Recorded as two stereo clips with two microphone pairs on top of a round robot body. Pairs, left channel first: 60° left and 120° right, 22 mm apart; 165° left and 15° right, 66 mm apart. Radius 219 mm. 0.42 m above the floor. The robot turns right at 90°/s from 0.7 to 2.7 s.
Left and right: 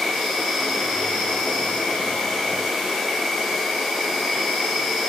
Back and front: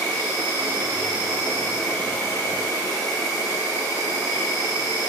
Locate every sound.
0.0 s an insect: 30° right, 1.0 m; by 5.1 s 150° left, 1.0 m